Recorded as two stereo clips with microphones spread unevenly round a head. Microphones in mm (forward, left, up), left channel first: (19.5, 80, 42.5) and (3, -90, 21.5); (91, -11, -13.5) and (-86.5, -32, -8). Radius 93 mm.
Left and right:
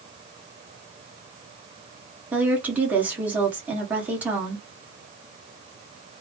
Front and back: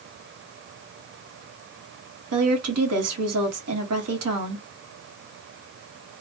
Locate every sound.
2.3 s a woman speaking: straight behind, 1.2 m